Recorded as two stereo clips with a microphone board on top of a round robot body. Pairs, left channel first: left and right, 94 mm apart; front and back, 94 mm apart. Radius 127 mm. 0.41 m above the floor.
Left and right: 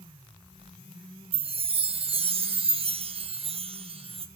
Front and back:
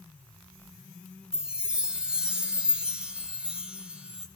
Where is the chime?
100° right, 0.9 m.